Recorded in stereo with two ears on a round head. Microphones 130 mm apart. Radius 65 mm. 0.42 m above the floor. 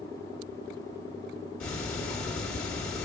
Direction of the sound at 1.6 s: 5° left (ahead or behind).